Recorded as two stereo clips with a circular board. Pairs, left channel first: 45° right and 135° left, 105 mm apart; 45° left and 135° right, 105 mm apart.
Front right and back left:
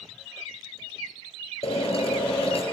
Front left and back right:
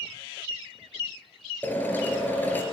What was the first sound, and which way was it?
A drill, 30° right.